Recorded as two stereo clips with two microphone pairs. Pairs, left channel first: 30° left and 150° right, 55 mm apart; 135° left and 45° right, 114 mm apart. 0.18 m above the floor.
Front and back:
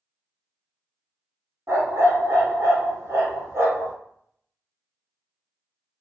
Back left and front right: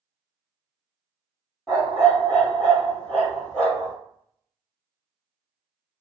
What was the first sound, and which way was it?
A dog barking, 140° right.